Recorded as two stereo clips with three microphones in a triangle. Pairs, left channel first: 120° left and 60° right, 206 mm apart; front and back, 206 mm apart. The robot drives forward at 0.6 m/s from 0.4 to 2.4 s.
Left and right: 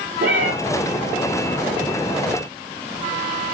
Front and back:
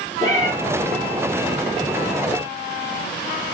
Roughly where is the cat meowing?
Right.